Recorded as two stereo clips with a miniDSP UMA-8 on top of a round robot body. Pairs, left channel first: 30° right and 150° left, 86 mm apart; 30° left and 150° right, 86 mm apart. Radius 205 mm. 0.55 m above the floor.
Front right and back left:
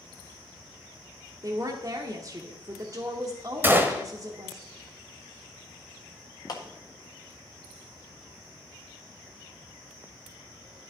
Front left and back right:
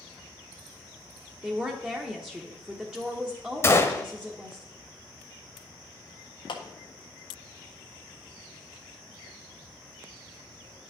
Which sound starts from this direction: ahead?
A clap, at 6.5 s.